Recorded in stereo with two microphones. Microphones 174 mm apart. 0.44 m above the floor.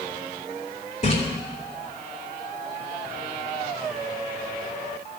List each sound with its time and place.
1.0 s a splash: 45° left (ahead or behind), 2 m